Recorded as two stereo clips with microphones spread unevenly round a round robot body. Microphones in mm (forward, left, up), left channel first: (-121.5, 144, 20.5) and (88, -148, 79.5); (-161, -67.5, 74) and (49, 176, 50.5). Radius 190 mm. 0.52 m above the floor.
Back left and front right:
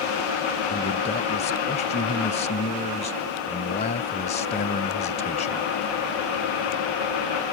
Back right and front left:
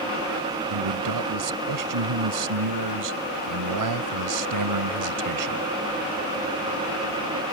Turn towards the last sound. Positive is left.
turn(degrees=55)